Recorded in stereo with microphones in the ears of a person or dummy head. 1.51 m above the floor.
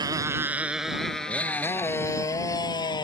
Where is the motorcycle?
20° right (ahead or behind); by 3.0 s 25° left (ahead or behind).